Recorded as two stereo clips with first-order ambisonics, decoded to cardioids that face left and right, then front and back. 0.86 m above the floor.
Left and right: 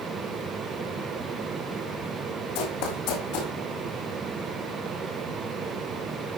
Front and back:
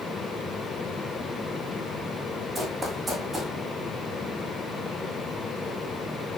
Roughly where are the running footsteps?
Left.